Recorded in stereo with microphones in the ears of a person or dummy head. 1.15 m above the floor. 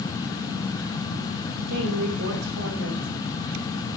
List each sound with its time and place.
1.7 s a woman speaking: 60° right (ahead or behind), 4 m